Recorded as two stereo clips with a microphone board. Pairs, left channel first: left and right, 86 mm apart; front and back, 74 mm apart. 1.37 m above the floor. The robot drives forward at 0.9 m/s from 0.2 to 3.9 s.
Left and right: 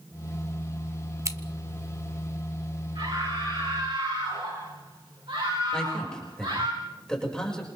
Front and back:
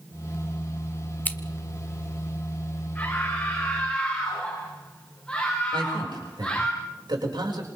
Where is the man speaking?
170° left, 6.5 m.